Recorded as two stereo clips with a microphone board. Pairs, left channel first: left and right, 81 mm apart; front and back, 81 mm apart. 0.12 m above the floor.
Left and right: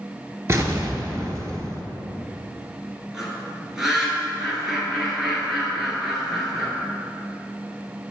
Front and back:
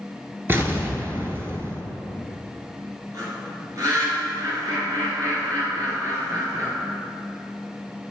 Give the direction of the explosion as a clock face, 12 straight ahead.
4 o'clock.